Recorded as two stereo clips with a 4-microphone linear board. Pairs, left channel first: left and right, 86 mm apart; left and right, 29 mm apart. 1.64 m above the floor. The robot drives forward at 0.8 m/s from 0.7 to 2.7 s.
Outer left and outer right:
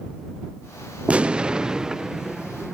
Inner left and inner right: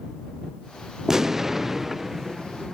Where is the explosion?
15° right (ahead or behind); by 2.7 s 5° right (ahead or behind).